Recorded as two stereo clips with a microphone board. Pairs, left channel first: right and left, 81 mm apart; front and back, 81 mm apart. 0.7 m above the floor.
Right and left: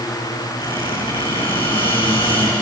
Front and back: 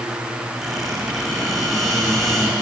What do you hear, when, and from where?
0.6 s a squeak: 85° right, 6.5 m